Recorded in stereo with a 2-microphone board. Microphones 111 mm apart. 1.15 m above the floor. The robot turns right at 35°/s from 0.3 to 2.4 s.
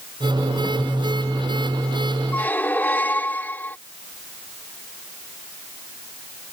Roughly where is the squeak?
Centre.